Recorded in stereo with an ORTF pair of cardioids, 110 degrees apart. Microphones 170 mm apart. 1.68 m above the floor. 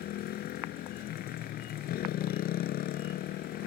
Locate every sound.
0.0 s a motorcycle: 65° left